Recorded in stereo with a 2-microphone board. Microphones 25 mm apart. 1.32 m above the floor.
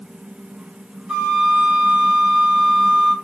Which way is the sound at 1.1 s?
45° right (ahead or behind).